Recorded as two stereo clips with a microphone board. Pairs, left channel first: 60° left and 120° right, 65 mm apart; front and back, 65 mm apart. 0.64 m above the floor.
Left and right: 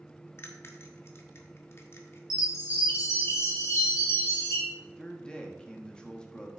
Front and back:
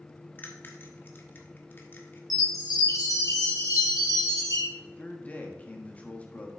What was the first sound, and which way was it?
A bell, 40° left.